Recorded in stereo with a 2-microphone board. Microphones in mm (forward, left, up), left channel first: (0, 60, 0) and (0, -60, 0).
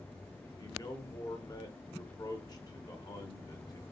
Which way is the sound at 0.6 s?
35° left (ahead or behind).